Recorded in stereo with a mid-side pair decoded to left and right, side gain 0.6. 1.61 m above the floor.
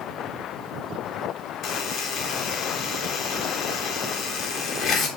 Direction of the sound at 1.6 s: 50° left.